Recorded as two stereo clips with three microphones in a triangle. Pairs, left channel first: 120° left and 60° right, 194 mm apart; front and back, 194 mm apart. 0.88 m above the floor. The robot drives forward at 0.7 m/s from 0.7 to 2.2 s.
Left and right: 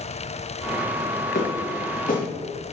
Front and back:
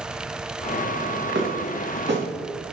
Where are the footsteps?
165° left, 4 m.